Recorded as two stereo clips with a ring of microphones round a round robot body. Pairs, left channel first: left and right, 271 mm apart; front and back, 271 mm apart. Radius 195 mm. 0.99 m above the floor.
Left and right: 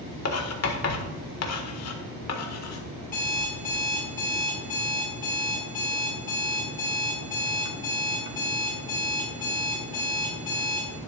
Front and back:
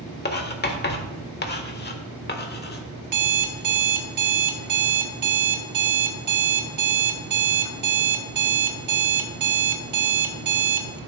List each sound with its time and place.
0.2 s writing: 55° left, 1.5 m
3.0 s an alarm clock: 165° left, 1.5 m